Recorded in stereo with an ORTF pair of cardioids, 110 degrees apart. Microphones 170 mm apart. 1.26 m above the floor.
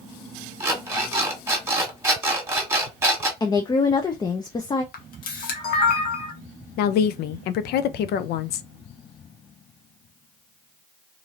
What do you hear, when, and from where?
0.6 s an alarm clock: 15° right, 1.5 m
3.4 s a woman speaking: 25° left, 0.5 m
4.9 s a camera shutter: 60° left, 1.1 m
6.8 s a woman speaking: 70° left, 0.5 m